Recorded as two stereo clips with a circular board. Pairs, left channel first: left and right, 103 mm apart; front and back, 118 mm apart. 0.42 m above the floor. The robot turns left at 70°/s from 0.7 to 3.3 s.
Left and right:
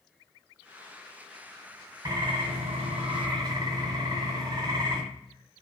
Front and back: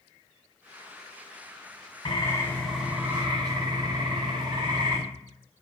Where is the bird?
40° right, 1.1 m; by 5.0 s 130° right, 1.1 m.